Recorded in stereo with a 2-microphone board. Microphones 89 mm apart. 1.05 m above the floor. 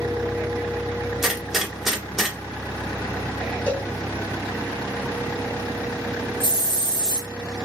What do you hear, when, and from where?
1.2 s a gunshot: 5° right (ahead or behind), 0.8 m
3.7 s a cowbell: 20° left (ahead or behind), 0.8 m
6.4 s a hiss: 75° left (ahead or behind), 1.5 m